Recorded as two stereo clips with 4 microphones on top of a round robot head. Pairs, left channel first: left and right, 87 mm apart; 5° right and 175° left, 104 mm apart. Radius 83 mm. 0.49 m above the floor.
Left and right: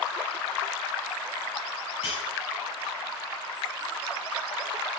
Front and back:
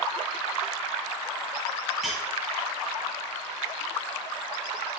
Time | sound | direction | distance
2.0 | cutlery clinking | 90° left | 7 m